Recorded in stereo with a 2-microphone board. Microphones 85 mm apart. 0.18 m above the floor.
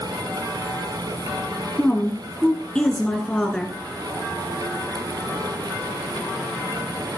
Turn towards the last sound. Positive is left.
turn(degrees=10)  # may be behind; listen again after turning